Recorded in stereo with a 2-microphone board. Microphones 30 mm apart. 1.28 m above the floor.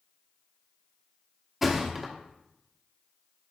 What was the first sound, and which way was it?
A thud, 10° right (ahead or behind).